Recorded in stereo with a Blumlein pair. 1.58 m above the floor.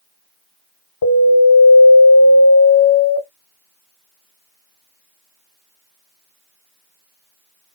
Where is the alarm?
45° left, 1.3 m.